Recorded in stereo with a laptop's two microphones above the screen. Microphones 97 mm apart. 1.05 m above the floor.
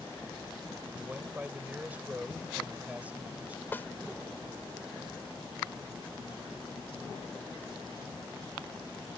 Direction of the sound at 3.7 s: 25° left (ahead or behind).